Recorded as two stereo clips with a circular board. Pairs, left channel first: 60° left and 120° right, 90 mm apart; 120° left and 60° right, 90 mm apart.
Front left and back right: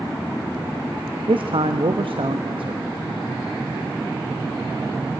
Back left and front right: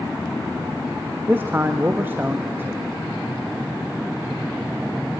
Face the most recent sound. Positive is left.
turn(degrees=-125)